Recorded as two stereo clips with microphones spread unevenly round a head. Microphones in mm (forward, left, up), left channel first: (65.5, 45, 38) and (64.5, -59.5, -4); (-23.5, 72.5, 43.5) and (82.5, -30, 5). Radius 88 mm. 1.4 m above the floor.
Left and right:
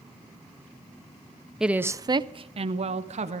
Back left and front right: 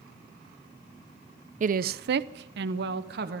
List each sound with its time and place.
1.6 s a woman speaking: straight ahead, 0.6 m; by 3.4 s 75° right, 1.2 m